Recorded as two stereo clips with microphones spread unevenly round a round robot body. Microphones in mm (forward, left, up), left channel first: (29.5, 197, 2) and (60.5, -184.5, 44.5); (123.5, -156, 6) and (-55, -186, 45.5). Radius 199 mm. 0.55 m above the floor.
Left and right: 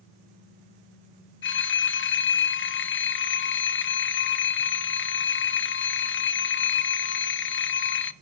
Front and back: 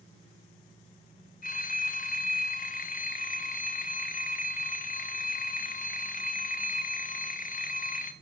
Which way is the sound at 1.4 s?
40° left.